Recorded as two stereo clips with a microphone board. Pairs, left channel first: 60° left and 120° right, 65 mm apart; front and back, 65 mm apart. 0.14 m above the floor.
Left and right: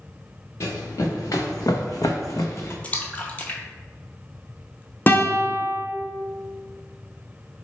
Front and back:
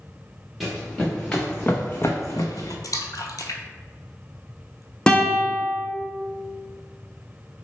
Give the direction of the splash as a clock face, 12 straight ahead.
12 o'clock.